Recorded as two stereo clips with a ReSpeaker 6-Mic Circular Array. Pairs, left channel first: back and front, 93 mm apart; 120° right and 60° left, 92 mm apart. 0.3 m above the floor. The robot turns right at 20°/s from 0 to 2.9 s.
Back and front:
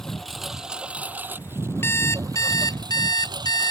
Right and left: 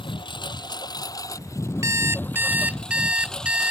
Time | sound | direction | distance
0.0 | a lawn mower | 95° right | ?
1.8 | an alarm clock | 115° left | ?